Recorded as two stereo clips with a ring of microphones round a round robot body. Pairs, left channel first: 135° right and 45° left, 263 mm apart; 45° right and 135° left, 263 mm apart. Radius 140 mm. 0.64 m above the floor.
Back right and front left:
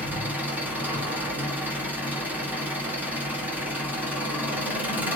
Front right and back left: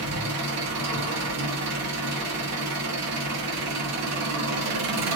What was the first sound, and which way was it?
An engine running, 130° left.